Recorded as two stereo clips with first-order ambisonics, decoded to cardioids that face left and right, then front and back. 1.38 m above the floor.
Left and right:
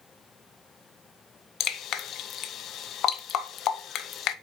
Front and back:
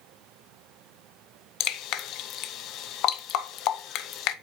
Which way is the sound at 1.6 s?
40° left.